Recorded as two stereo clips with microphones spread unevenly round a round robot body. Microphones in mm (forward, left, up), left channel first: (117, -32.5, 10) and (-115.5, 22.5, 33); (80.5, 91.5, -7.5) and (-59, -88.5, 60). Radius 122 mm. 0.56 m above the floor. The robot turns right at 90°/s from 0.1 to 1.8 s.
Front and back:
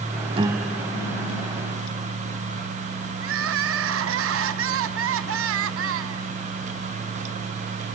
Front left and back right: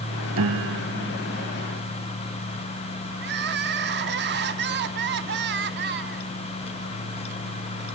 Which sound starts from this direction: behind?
Crying, at 3.2 s.